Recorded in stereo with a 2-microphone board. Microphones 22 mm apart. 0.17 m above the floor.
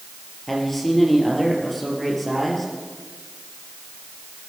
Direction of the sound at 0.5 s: 5° left (ahead or behind).